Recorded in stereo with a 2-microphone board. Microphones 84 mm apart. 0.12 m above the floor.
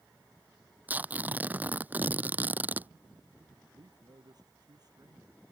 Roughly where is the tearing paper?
Centre.